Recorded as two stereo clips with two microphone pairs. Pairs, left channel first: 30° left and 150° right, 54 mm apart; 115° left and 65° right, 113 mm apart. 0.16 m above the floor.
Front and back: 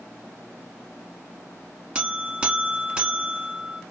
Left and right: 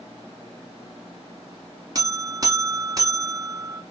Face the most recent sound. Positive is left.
turn(degrees=-95)